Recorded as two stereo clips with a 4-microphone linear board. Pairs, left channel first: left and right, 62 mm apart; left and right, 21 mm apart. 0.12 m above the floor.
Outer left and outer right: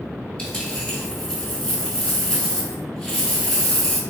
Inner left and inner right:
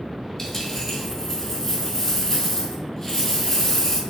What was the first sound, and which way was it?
A dropped coin, 15° left (ahead or behind).